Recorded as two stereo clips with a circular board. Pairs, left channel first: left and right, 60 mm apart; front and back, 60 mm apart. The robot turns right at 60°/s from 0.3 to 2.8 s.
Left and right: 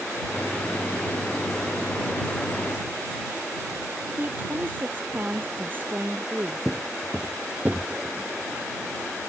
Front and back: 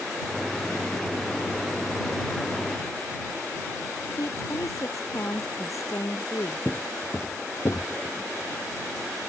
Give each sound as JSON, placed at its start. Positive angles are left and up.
{"t": 4.2, "sound": "a woman speaking", "azimuth_deg": -35}
{"t": 6.7, "sound": "footsteps", "azimuth_deg": -10}